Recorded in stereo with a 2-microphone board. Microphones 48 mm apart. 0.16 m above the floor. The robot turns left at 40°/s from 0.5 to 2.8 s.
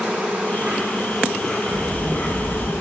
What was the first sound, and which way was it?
An insect, 150° right.